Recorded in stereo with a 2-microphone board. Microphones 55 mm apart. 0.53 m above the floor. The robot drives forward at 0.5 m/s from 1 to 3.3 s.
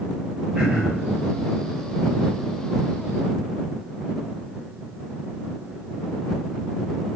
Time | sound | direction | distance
0.6 | throat clearing | 20° right (ahead or behind) | 1.3 m